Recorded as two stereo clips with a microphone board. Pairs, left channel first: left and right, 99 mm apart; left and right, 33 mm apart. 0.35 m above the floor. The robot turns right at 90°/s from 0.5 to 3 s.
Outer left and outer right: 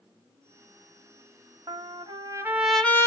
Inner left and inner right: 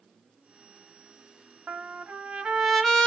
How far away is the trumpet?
About 0.7 m.